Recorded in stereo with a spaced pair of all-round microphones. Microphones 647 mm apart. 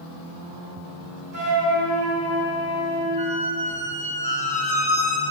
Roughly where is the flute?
Right.